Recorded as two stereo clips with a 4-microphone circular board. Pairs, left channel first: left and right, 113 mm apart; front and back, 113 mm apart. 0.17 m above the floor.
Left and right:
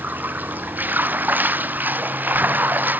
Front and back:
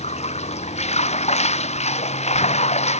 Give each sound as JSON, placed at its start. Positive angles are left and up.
{"t": 0.0, "sound": "running water", "azimuth_deg": -15}